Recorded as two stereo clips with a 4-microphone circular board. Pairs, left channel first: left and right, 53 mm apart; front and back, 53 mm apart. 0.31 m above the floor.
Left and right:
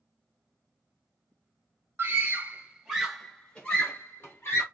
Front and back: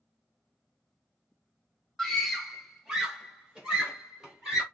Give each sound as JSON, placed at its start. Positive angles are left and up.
{"t": 2.0, "sound": "a scream", "azimuth_deg": -85, "distance_m": 1.1}